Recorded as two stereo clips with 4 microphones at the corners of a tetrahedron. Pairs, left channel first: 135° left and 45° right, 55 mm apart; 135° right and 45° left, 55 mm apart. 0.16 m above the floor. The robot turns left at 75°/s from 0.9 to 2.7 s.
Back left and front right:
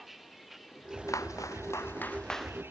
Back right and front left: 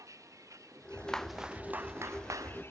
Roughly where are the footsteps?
Behind left.